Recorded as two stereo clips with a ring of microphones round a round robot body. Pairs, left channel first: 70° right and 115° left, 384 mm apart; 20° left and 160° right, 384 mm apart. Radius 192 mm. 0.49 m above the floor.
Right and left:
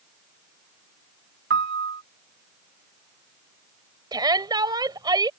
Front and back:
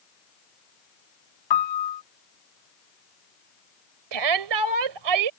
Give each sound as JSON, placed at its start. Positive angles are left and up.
{"t": 1.5, "sound": "a piano", "azimuth_deg": 50}
{"t": 4.1, "sound": "a shout", "azimuth_deg": -170}